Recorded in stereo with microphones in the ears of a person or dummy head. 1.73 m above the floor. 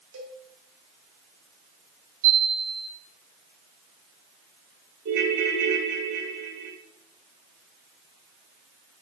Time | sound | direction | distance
0.1 | a cowbell | 85° right | 2.5 m
2.2 | a chime | 50° right (ahead or behind) | 3.5 m
5.0 | a ringtone | 70° right (ahead or behind) | 3 m